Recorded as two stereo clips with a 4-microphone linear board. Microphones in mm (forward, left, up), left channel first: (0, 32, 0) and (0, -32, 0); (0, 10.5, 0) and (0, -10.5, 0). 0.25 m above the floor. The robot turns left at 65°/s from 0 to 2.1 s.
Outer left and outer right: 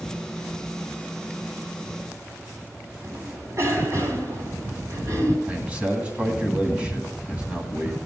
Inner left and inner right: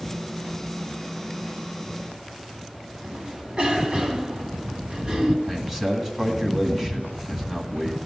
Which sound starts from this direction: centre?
A man speaking, at 5.5 s.